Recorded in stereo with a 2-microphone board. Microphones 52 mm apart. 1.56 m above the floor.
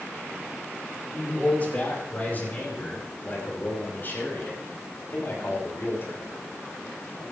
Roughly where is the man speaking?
Left.